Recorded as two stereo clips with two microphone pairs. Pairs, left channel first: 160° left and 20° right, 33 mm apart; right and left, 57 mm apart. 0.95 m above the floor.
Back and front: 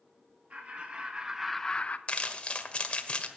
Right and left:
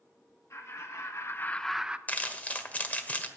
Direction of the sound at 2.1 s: 150° right.